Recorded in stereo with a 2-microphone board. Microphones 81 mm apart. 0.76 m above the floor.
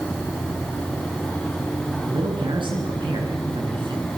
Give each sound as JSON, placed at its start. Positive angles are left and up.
{"t": 2.0, "sound": "a man speaking", "side_deg": -85, "distance_m": 9.5}